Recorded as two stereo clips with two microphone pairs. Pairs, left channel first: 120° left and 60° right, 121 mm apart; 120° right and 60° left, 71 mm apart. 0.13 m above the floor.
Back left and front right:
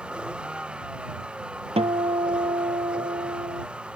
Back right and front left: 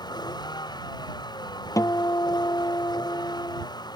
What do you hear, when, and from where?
0.0 s a vehicle: 140° right
1.8 s a guitar: 90° right